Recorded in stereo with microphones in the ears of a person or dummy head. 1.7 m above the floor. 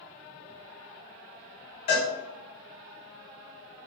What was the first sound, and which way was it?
A cowbell, 40° left (ahead or behind).